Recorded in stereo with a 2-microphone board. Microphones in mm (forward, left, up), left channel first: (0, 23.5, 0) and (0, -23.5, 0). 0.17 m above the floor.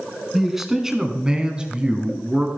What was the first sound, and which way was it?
A man speaking, 5° right (ahead or behind).